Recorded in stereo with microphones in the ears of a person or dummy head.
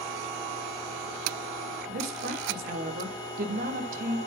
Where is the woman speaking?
50° right (ahead or behind), 1.6 m.